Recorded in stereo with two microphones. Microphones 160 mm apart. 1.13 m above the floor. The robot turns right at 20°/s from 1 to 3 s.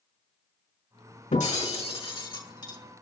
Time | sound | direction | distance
1.3 | breaking glass | 50° left (ahead or behind) | 4.5 m